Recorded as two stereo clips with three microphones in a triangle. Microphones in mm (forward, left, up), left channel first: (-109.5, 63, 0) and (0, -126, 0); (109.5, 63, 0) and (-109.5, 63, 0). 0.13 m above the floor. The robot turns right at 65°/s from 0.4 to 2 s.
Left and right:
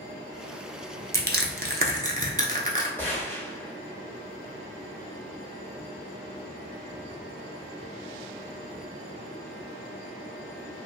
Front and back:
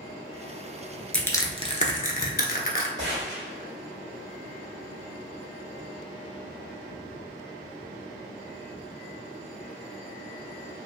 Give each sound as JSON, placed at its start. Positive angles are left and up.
{"t": 1.1, "sound": "crushing", "azimuth_deg": -85, "distance_m": 0.6}
{"t": 3.0, "sound": "a gunshot", "azimuth_deg": -160, "distance_m": 1.3}